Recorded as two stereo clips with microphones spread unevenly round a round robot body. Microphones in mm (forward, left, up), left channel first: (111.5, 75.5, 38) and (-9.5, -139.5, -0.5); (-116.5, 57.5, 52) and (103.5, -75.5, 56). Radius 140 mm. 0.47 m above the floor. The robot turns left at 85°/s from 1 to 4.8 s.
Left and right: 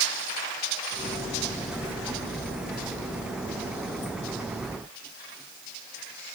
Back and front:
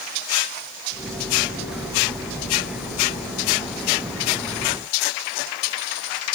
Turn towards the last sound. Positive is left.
No sound to turn to.